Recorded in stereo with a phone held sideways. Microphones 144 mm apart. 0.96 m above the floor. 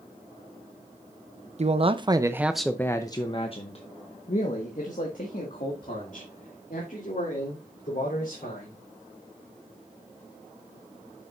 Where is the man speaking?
50° right (ahead or behind), 0.7 m; by 8.8 s 70° left (ahead or behind), 3.5 m.